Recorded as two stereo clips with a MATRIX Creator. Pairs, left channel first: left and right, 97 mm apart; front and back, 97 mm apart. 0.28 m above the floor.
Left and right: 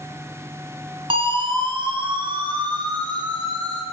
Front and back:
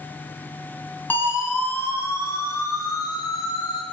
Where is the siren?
70° right, 4 m; by 3.8 s 45° right, 4.5 m.